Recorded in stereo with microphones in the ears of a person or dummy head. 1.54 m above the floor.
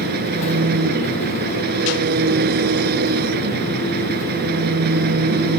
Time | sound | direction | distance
0.0 | an engine running | 55° right (ahead or behind) | ?